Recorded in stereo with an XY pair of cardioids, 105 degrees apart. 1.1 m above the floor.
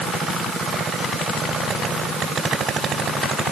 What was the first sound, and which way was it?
Only background noise.